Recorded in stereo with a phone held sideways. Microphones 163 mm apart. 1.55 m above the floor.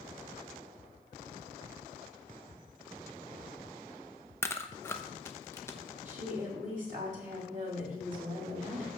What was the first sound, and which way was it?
Chewing, 15° left (ahead or behind).